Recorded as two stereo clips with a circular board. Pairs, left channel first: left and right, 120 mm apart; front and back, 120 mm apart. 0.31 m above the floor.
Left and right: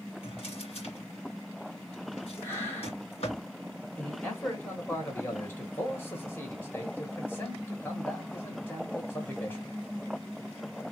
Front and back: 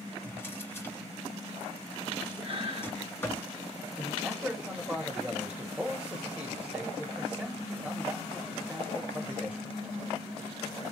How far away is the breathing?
About 3 m.